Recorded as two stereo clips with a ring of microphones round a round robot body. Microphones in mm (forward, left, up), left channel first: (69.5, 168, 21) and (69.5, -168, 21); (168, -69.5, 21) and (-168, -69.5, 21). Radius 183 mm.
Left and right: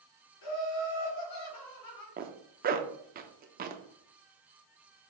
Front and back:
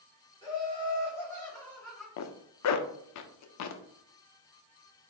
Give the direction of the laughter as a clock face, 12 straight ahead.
9 o'clock.